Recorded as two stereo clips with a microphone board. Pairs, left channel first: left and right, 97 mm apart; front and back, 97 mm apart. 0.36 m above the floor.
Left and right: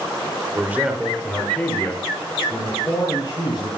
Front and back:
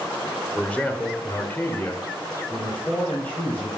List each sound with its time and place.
0.6 s a man speaking: 60° right, 0.9 m; by 3.7 s 70° left, 1.7 m